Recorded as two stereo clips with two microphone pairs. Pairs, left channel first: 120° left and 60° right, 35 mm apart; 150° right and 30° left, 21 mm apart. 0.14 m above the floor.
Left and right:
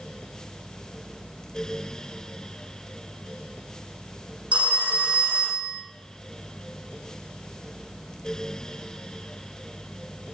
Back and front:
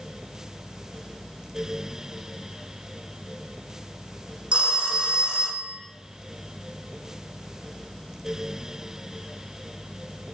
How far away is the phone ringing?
About 3.5 m.